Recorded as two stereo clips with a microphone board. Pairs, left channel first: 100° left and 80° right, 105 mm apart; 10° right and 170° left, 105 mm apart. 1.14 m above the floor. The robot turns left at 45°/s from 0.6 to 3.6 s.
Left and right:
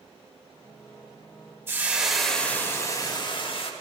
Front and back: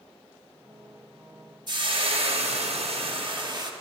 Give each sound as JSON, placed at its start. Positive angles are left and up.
{"t": 1.7, "sound": "frying", "azimuth_deg": -145, "distance_m": 1.1}